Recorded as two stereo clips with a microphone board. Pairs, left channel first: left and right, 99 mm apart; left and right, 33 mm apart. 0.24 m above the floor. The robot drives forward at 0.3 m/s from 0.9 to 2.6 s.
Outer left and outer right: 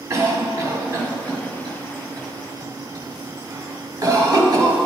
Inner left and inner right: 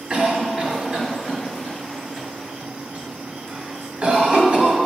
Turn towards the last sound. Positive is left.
turn(degrees=-40)  # may be behind; listen again after turning